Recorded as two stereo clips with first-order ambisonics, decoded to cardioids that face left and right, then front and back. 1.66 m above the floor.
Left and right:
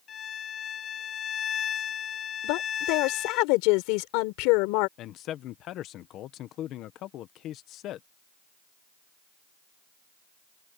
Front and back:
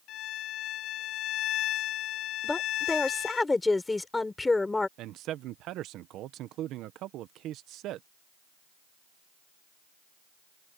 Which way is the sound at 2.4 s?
80° left.